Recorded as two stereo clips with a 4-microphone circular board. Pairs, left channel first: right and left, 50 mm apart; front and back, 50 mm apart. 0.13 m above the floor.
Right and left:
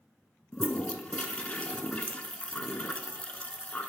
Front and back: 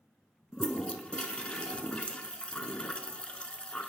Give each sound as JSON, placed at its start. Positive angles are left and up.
{"t": 0.5, "sound": "a toilet flushing", "azimuth_deg": -50, "distance_m": 0.7}